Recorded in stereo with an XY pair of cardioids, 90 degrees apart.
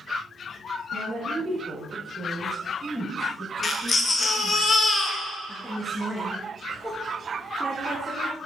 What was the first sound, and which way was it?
A woman speaking, 60° right.